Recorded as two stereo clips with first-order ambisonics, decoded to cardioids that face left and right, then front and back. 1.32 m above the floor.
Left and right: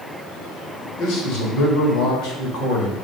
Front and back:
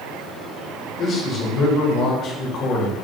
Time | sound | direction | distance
1.0 | a man speaking | 60° left | 3 m